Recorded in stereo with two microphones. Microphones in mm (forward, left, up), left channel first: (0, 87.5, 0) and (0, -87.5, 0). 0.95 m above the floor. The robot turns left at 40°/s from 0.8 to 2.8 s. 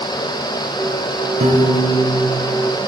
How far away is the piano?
About 1.8 m.